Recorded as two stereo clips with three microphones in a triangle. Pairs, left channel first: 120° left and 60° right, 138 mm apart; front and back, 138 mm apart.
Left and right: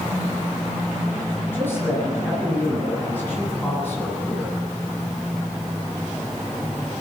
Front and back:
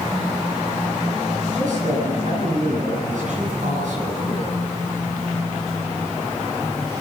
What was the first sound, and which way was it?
A man speaking, 165° right.